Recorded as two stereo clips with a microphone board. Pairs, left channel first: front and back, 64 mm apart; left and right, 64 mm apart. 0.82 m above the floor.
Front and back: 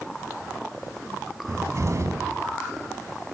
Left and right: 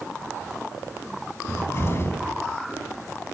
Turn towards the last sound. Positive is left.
turn(degrees=140)